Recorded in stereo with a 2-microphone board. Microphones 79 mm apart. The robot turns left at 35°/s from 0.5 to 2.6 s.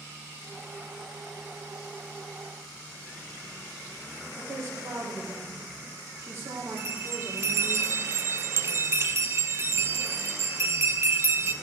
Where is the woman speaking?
35° right (ahead or behind), 3 m.